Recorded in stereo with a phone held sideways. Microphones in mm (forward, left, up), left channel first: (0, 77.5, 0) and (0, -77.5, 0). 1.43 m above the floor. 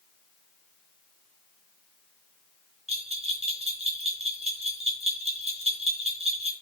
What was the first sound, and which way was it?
A bell, 40° right (ahead or behind).